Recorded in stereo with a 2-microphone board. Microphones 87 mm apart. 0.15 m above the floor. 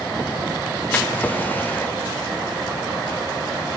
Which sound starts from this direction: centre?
A drawer, at 0.9 s.